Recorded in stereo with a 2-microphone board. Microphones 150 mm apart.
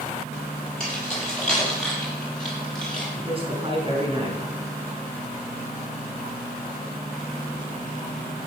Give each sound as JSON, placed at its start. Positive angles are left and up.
{"t": 0.8, "sound": "keys jangling", "side_deg": 5, "distance_m": 6.5}
{"t": 3.2, "sound": "a man speaking", "side_deg": -35, "distance_m": 4.0}